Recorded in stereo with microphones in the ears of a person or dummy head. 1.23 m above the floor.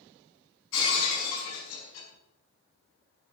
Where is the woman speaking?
I don't hear a woman speaking.